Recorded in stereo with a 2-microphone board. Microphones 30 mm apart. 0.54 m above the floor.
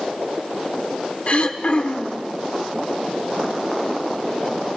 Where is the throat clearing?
45° left (ahead or behind), 1.2 m.